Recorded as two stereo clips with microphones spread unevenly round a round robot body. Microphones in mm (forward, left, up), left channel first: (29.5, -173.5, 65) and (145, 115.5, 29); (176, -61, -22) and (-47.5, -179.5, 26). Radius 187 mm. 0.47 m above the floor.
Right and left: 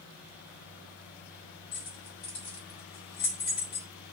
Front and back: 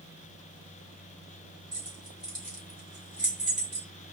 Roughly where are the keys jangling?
Right.